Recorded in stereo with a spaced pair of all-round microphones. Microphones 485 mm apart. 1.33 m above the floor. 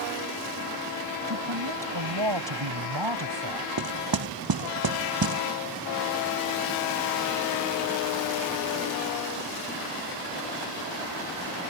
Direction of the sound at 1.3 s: 65° right (ahead or behind).